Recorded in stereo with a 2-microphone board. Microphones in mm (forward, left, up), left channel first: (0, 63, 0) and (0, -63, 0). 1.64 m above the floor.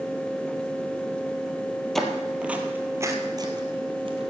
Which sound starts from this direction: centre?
Footsteps, at 1.9 s.